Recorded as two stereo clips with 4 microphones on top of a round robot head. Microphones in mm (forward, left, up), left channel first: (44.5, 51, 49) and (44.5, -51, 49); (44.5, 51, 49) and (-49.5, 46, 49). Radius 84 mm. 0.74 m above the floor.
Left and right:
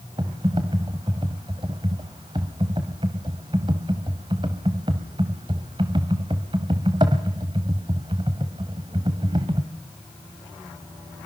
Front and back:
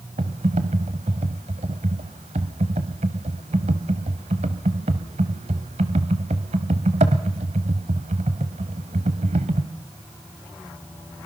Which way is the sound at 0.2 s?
145° right.